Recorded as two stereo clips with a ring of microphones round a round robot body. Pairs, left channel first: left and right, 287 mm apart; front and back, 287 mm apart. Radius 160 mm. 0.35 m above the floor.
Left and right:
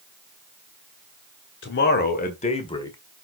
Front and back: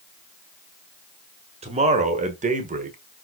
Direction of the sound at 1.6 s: 120° left.